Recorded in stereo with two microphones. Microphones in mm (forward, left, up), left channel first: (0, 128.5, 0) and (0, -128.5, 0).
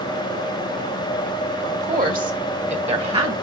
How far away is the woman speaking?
About 1.6 m.